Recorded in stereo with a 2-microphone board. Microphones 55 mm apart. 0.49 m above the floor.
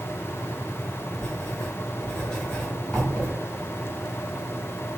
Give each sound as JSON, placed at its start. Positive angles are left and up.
{"t": 1.2, "sound": "writing", "side_deg": 10, "distance_m": 1.5}